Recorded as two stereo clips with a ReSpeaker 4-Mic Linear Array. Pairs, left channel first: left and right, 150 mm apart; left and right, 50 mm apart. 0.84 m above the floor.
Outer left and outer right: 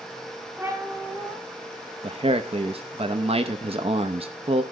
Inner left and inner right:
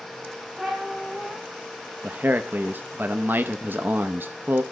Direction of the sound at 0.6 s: 10° right (ahead or behind).